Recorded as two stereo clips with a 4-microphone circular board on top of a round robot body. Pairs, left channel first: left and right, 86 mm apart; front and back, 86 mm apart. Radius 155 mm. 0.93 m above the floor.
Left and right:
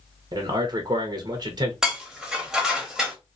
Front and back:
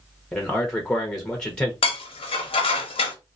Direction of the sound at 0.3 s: 80° right.